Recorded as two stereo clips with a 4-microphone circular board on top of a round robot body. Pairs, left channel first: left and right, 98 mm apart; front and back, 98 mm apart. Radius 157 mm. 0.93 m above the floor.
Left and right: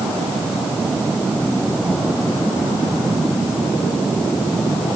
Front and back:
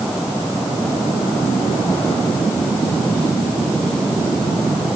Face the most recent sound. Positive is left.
No sound to turn to.